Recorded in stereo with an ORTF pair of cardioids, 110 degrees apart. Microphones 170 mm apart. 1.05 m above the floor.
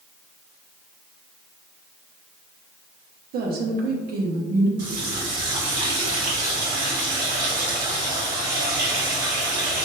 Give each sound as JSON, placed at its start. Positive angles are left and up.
{"t": 3.3, "sound": "a woman speaking", "azimuth_deg": -65, "distance_m": 1.1}
{"t": 4.8, "sound": "a running tap", "azimuth_deg": -60, "distance_m": 1.5}